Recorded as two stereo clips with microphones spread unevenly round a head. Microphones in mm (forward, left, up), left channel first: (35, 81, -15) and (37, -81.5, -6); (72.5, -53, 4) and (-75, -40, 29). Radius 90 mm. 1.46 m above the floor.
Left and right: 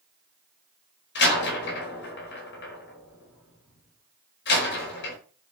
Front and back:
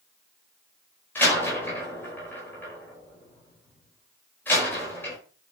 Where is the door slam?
75° left, 5 m.